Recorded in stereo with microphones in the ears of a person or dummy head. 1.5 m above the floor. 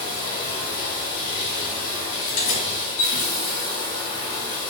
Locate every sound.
0.0 s running water: 35° left (ahead or behind), 1.6 m
2.2 s keys jangling: 35° left (ahead or behind), 0.7 m